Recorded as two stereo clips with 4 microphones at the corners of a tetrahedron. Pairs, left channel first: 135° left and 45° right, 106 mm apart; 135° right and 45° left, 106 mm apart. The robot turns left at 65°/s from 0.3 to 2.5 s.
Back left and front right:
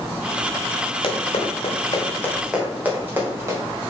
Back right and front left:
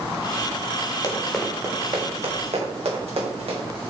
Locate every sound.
1.0 s running footsteps: 165° left, 3.5 m; by 3.6 s 20° left, 5.5 m